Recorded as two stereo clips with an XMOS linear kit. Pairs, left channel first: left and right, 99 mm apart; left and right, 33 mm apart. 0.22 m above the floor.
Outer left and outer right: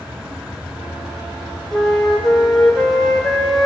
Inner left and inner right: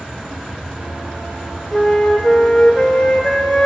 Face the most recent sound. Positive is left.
turn(degrees=0)  # may be behind; listen again after turning